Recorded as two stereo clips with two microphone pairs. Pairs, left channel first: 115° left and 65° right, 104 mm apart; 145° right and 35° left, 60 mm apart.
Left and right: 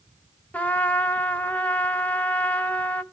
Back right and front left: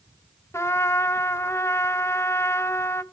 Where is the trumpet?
170° right, 0.7 m.